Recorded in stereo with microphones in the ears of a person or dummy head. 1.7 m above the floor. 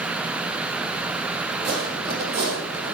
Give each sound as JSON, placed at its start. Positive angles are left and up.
{"t": 1.6, "sound": "footsteps", "side_deg": -35, "distance_m": 3.0}